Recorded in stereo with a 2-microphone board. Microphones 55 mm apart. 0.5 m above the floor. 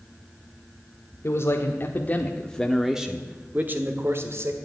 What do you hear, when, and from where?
1.2 s a man speaking: 50° left (ahead or behind), 1.5 m; by 4.5 s 55° right (ahead or behind), 1.7 m